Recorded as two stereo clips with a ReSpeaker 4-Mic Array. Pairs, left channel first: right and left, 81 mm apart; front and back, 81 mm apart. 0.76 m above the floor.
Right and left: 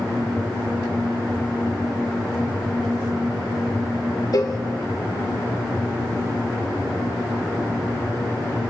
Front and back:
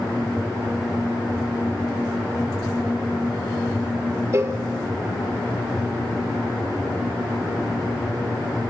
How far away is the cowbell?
About 1.4 m.